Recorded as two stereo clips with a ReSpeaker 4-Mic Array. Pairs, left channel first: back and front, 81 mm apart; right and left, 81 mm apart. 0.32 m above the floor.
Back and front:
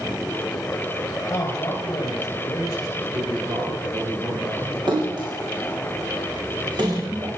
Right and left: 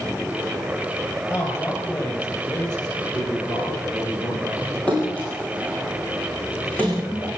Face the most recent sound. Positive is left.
turn(degrees=-15)